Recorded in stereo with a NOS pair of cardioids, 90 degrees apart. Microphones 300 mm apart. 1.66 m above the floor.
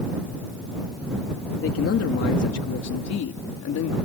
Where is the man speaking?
45° left; by 4.0 s 70° left.